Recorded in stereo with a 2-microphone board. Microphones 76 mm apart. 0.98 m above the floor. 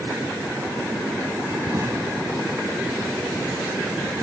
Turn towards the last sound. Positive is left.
turn(degrees=-40)  # may be behind; listen again after turning